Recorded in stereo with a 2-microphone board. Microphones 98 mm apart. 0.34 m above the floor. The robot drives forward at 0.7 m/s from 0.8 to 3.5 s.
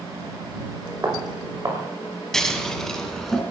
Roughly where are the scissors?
Centre.